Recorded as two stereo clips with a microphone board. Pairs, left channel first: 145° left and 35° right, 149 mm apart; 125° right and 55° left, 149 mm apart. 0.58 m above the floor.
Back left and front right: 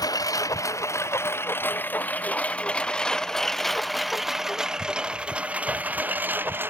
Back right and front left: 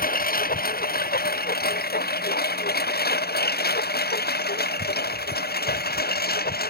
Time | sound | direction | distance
0.0 | a lawn mower | 150° right | ?